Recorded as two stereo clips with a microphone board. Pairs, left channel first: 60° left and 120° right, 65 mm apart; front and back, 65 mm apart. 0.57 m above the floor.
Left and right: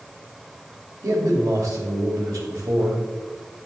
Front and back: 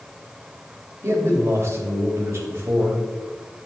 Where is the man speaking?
135° right, 3 m.